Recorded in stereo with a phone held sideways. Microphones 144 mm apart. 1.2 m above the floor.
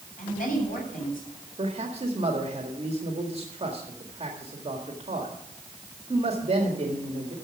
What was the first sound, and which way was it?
A woman speaking, 75° left (ahead or behind).